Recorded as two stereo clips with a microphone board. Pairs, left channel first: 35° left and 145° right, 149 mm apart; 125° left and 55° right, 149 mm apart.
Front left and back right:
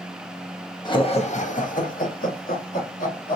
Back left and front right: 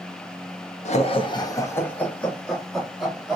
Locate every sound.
0.8 s laughter: 90° left, 0.7 m; by 3.4 s 30° left, 1.9 m